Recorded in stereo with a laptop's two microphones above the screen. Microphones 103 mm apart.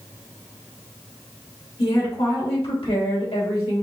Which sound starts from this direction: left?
A woman speaking, at 1.8 s.